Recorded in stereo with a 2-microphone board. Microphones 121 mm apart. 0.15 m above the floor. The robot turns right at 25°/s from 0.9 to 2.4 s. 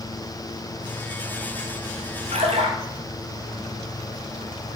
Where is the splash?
70° right (ahead or behind), 1.9 m.